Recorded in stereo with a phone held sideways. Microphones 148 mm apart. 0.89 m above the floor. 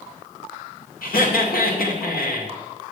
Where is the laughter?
80° left, 2 m.